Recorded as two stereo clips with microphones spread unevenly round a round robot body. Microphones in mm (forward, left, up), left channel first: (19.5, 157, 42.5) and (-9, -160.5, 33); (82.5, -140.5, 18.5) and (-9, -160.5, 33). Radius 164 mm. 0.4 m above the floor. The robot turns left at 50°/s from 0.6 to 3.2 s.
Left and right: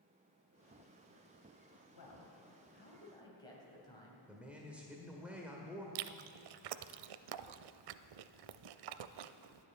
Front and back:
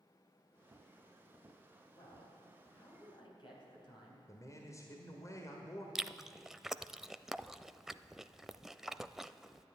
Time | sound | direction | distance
1.9 | a man speaking | 70° left | 3.5 m
4.3 | a man speaking | 10° right | 1.4 m
6.0 | chewing | 80° right | 0.5 m